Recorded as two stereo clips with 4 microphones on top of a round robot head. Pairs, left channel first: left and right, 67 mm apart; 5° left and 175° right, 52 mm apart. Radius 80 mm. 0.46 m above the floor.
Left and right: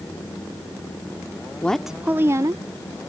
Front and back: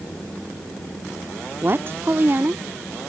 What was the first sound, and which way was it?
A woman speaking, 155° left.